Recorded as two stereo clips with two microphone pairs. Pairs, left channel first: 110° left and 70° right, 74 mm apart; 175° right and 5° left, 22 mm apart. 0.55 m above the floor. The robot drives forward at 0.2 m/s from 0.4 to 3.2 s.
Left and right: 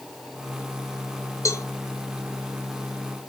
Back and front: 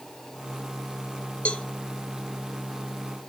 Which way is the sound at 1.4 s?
160° left.